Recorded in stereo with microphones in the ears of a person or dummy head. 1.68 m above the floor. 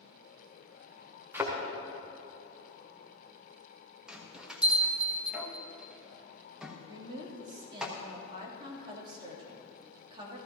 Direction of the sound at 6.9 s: 30° right (ahead or behind).